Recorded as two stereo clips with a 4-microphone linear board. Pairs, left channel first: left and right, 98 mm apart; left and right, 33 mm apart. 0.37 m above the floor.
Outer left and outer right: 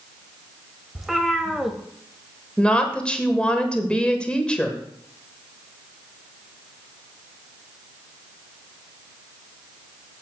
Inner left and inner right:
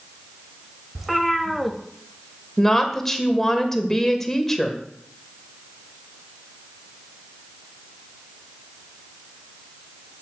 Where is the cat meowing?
Centre (ahead or behind), 1.0 m.